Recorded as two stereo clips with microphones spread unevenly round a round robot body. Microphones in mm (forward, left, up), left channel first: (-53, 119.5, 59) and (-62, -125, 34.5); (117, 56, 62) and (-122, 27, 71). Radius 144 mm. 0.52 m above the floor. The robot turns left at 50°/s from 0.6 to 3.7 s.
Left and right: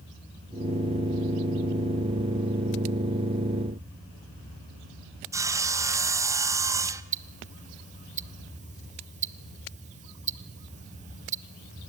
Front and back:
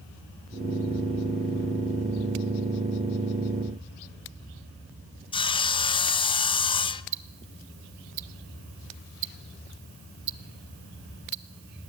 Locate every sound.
5.3 s sawing: 35° right, 0.7 m
7.1 s ticking: 155° right, 0.5 m